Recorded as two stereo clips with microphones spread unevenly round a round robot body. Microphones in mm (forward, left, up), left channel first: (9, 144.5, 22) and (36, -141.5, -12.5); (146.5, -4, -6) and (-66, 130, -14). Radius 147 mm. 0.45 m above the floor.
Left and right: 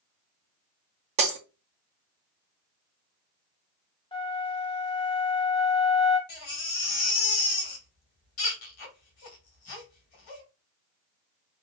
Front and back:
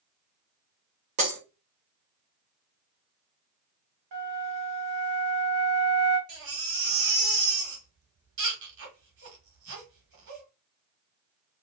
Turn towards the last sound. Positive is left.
turn(degrees=120)